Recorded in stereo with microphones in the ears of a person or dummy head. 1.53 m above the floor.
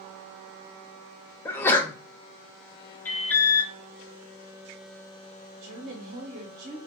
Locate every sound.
1.4 s a sneeze: 15° left (ahead or behind), 1.0 m
3.0 s an alarm: 15° left (ahead or behind), 0.8 m
5.6 s a woman speaking: 55° right (ahead or behind), 1.6 m